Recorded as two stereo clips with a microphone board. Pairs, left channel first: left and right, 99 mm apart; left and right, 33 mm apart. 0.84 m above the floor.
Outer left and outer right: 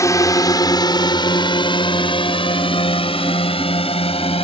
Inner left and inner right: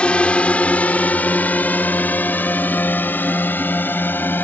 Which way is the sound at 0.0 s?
30° left (ahead or behind).